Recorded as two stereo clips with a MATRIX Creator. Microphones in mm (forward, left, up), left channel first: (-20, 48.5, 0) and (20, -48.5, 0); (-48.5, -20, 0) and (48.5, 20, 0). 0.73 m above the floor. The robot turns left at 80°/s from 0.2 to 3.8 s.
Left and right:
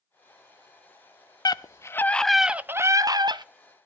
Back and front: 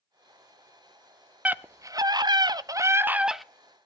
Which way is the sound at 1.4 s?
90° left.